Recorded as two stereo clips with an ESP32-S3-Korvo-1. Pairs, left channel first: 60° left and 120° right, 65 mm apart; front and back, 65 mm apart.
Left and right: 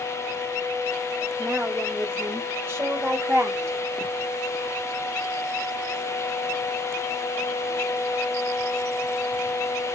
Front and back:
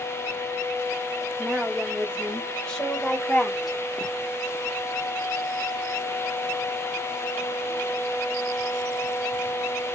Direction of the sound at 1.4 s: 80° right.